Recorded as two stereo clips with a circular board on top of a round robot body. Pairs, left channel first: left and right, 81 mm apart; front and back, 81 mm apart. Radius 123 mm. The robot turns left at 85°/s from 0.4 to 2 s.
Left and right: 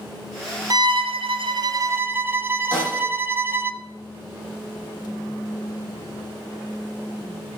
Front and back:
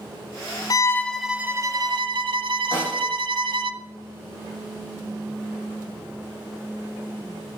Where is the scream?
I don't hear a scream.